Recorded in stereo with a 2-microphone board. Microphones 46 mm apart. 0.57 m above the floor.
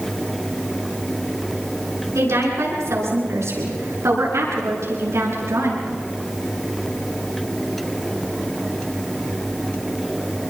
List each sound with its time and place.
2.1 s a woman speaking: 80° right, 8 m